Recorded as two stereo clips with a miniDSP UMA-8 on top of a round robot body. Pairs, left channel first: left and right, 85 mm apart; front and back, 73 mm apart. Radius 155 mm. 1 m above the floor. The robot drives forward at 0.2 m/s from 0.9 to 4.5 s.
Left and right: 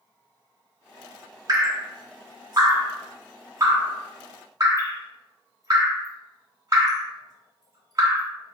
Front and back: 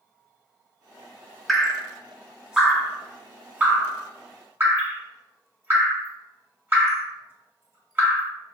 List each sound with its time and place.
1.5 s dripping: 90° right, 1.0 m; by 8.3 s 130° right, 1.2 m